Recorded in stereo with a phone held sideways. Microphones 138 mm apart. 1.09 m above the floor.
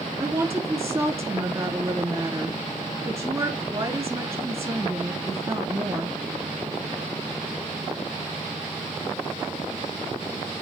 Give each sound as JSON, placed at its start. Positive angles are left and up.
{"t": 0.2, "sound": "a woman speaking", "side_deg": -30, "distance_m": 2.0}